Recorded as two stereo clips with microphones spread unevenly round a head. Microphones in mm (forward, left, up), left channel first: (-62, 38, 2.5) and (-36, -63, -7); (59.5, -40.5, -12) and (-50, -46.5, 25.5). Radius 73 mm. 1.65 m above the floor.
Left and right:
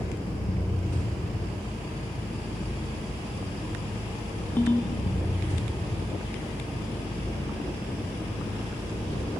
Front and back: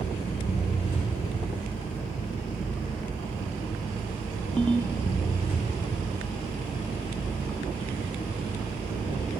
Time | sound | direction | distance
0.0 | an engine running | 35° left | 3 m
4.6 | a ringtone | 125° left | 0.6 m